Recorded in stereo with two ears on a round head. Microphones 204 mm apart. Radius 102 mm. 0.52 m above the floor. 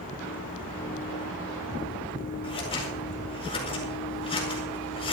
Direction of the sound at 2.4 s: 25° left (ahead or behind).